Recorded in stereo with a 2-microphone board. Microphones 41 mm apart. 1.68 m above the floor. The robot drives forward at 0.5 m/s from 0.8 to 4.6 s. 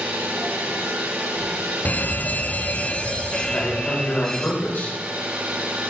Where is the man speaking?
55° left (ahead or behind), 6 m; by 5.0 s 50° left (ahead or behind), 6.5 m.